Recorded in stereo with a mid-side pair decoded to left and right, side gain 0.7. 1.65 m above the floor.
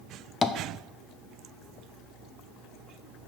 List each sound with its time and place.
0.4 s tapping: 25° left, 0.7 m